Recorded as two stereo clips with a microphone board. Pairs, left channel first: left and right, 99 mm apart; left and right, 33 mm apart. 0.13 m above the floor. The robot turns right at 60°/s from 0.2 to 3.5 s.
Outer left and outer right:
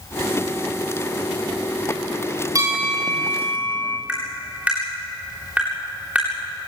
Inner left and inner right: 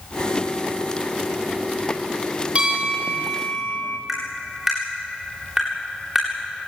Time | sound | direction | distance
2.5 | a bell | 35° right | 3.5 m
4.1 | tapping | 15° right (ahead or behind) | 8 m